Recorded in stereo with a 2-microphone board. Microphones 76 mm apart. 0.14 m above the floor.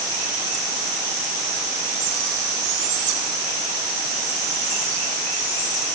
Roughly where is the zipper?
No zipper in this recording.